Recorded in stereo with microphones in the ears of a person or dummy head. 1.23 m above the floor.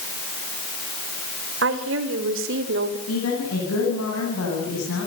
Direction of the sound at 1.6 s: 85° right.